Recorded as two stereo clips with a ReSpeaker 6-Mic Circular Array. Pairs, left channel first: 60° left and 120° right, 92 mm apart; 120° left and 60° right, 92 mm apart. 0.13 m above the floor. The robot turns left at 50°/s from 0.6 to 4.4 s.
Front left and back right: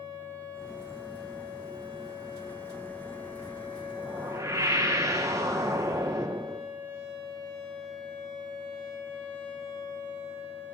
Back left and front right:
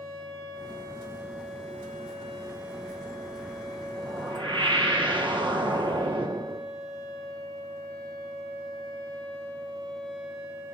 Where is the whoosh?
45° right, 1.5 m; by 6.7 s 70° right, 1.5 m.